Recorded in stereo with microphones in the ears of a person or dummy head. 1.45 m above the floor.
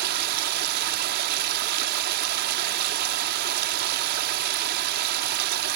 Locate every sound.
0.0 s running water: 55° right (ahead or behind)